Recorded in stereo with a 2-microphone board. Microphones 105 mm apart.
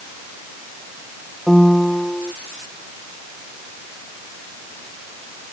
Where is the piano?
5° left (ahead or behind).